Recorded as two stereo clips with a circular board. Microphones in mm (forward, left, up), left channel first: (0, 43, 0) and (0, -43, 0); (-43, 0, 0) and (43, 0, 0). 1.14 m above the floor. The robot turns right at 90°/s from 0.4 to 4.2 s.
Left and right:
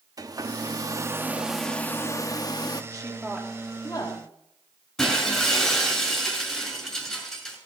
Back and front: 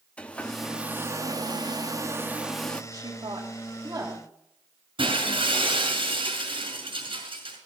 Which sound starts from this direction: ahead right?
A woman speaking, at 2.9 s.